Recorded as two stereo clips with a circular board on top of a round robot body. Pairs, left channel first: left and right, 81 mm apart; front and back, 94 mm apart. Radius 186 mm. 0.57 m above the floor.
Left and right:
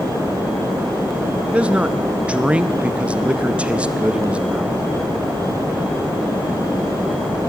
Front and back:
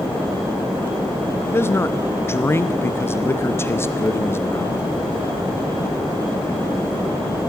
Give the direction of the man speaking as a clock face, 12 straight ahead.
1 o'clock.